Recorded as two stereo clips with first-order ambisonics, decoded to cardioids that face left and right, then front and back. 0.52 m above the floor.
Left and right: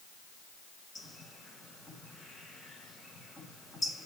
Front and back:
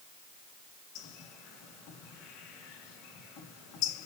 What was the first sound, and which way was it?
A bird, 10° left.